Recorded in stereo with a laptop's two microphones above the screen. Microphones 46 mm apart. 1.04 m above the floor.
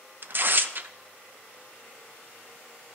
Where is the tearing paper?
45° right (ahead or behind), 0.6 m.